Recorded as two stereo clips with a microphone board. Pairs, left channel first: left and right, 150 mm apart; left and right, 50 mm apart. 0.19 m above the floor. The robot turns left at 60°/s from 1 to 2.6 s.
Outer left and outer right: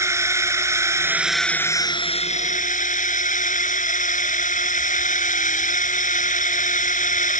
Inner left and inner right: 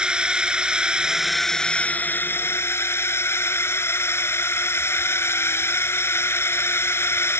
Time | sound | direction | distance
0.0 | a drone | 160° right | ?